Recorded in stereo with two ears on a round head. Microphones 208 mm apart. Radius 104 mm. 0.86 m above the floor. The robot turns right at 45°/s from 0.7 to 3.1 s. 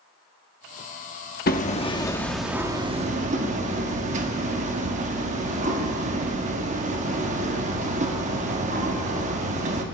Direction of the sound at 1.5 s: 140° left.